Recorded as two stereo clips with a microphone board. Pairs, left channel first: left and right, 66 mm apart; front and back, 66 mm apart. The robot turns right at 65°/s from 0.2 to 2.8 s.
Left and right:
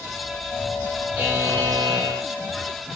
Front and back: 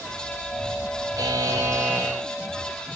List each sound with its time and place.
1.2 s a buzzer: 160° right, 8 m; by 2.3 s 90° right, 8 m